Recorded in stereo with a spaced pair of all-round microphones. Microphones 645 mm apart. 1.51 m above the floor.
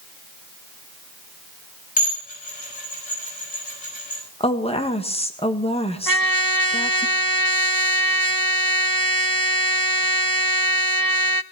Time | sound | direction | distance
2.0 | dishes clattering | 65° left (ahead or behind) | 6 m
4.4 | a woman speaking | 10° left (ahead or behind) | 1.7 m
6.1 | a trumpet | 35° right (ahead or behind) | 0.6 m